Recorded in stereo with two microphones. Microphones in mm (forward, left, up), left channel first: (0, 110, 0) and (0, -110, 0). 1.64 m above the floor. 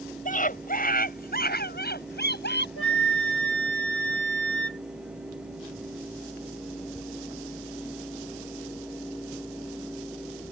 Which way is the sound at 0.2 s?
35° left (ahead or behind).